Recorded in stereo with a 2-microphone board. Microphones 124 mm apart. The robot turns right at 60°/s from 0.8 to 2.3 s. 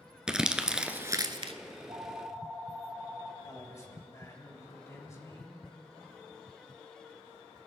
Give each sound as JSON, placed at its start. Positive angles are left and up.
{"t": 0.3, "sound": "crumpling", "side_deg": -5, "distance_m": 0.6}
{"t": 1.7, "sound": "a phone ringing", "azimuth_deg": -50, "distance_m": 1.3}
{"t": 3.4, "sound": "a man speaking", "side_deg": 25, "distance_m": 2.0}